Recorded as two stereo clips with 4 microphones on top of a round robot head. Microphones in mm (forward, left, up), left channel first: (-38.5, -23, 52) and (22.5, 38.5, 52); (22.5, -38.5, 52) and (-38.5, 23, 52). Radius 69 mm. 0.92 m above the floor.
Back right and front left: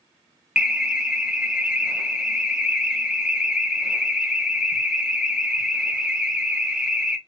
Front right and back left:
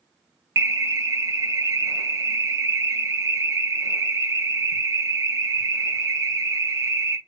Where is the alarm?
115° left, 0.9 m.